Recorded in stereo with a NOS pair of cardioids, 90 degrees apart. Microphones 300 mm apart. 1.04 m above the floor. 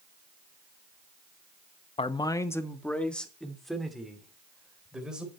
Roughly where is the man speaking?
Ahead.